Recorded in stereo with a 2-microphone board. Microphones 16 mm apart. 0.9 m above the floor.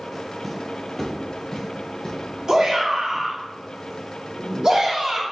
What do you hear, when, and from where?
0.4 s footsteps: centre (ahead or behind), 1.0 m; by 3.2 s 55° left (ahead or behind), 1.8 m
2.5 s a shout: 40° right (ahead or behind), 1.6 m